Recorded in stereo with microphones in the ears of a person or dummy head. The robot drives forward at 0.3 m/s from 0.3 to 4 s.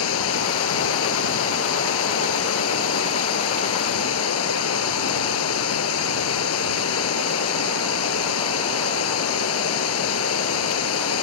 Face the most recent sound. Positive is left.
turn(degrees=85)